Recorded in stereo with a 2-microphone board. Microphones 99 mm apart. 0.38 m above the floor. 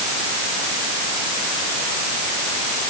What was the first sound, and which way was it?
Only background noise.